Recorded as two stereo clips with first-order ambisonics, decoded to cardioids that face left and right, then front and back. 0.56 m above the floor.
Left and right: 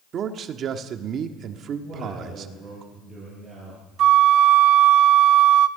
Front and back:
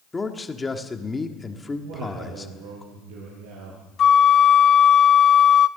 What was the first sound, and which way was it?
A man speaking, 75° right.